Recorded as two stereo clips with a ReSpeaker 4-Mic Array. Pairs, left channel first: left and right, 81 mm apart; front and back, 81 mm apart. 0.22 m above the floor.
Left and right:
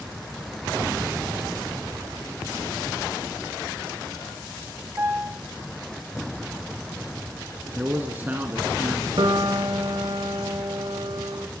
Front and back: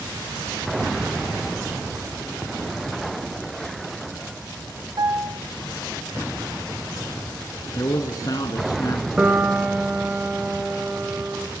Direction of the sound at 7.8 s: 25° right.